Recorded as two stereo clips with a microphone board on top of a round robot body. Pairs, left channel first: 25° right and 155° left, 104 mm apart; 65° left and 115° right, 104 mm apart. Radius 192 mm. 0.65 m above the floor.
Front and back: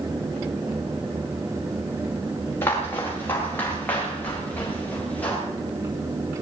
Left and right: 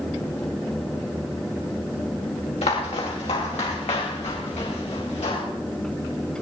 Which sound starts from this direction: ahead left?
Footsteps, at 2.6 s.